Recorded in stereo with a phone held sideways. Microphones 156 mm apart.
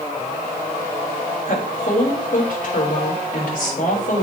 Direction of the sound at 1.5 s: 60° left (ahead or behind).